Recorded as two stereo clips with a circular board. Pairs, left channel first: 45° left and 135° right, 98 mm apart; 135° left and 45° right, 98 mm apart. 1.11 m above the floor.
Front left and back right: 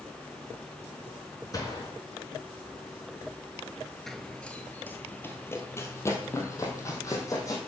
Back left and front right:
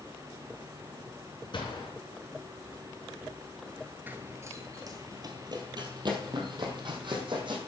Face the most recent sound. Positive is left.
turn(degrees=-10)